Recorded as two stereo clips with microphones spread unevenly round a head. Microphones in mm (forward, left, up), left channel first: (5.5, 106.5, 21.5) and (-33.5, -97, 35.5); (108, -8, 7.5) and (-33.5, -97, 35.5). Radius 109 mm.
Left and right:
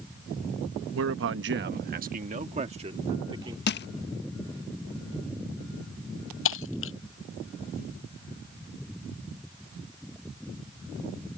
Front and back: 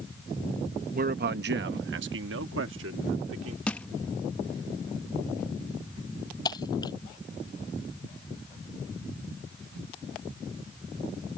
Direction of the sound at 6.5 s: 105° left.